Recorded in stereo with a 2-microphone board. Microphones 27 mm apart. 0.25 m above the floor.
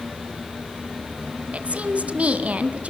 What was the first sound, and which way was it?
A woman speaking, 55° right (ahead or behind).